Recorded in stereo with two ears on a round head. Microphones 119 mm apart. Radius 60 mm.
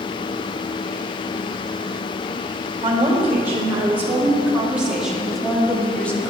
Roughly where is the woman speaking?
Right.